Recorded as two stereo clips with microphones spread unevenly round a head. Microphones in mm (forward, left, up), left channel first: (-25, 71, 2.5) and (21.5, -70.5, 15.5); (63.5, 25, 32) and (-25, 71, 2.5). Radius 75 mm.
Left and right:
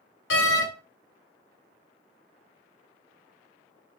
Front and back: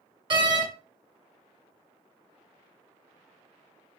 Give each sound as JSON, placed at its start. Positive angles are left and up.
{"t": 0.3, "sound": "a door slam", "azimuth_deg": 105, "distance_m": 1.1}